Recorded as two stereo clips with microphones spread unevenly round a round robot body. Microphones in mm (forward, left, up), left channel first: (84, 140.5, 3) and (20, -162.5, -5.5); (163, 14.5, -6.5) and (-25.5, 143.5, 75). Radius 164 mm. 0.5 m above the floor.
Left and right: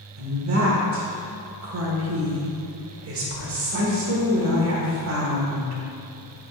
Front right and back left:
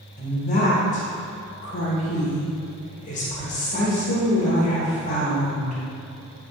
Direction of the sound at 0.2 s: 70° right.